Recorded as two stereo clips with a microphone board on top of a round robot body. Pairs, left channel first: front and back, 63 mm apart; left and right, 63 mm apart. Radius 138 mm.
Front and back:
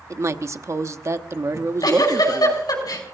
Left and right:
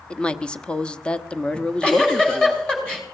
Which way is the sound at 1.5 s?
15° left.